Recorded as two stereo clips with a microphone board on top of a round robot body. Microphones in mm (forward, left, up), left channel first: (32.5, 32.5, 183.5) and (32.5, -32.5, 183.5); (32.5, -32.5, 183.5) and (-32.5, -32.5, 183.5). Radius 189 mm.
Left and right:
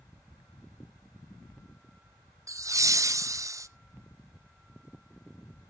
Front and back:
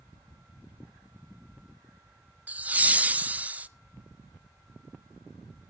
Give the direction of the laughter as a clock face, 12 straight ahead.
4 o'clock.